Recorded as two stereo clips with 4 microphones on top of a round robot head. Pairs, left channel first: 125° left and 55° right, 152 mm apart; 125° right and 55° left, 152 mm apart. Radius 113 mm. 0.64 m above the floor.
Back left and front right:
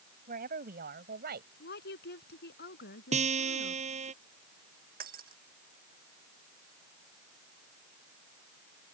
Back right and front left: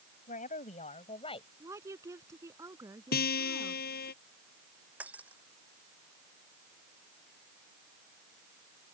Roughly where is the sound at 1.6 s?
Behind left.